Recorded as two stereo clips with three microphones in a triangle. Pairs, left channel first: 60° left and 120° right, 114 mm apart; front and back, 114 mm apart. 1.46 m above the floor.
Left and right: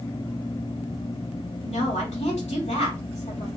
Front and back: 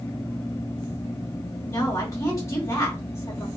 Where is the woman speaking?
65° left, 2.5 m.